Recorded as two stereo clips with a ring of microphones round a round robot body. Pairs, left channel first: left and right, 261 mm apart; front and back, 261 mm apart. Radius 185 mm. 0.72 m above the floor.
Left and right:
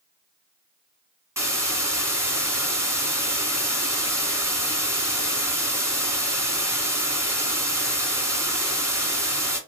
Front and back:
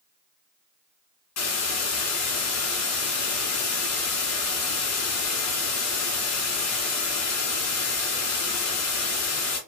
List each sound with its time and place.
1.4 s a hiss: 10° right, 1.5 m